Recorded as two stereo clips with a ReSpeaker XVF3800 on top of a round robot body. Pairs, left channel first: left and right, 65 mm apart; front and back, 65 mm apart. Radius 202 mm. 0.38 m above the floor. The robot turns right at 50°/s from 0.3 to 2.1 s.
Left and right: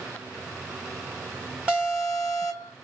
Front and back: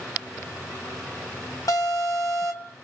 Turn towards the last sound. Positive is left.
turn(degrees=5)